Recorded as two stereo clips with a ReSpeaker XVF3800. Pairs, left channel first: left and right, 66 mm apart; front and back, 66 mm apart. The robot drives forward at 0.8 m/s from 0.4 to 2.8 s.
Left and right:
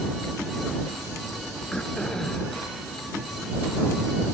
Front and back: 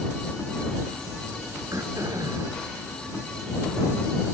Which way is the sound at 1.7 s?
165° left.